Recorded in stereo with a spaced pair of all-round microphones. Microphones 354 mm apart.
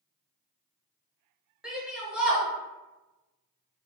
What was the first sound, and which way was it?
A shout, centre (ahead or behind).